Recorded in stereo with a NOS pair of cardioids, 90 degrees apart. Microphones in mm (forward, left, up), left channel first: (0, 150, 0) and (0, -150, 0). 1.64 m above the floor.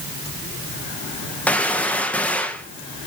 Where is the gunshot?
5° left, 1.8 m.